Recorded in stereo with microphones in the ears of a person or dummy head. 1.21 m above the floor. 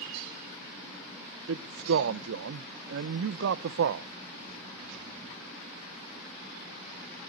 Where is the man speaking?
75° right (ahead or behind), 0.5 m.